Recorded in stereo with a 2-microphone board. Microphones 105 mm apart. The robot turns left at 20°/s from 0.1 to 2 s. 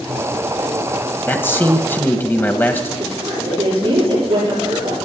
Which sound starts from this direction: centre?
A man speaking, at 1.3 s.